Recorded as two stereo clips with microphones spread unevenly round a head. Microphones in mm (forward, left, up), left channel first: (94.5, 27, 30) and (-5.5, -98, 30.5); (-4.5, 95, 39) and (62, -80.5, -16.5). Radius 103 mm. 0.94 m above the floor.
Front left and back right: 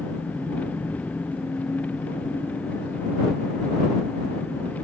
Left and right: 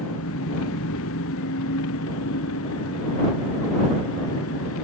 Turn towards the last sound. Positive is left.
turn(degrees=135)